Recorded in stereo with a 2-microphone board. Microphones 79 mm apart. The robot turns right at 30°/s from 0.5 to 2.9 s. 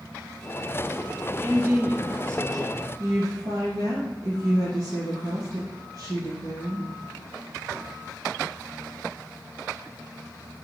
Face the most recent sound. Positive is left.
turn(degrees=-45)  # may be behind; listen again after turning